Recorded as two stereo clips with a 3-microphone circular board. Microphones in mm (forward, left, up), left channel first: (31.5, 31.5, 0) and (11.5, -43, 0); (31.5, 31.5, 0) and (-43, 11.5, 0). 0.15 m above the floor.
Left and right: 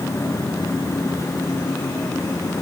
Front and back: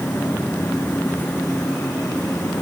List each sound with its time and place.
Only background noise.